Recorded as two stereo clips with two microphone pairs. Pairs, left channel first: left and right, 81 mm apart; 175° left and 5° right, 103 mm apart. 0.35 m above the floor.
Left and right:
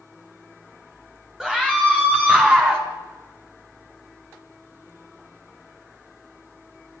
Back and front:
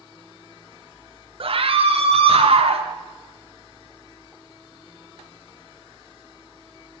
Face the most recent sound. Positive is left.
turn(degrees=-25)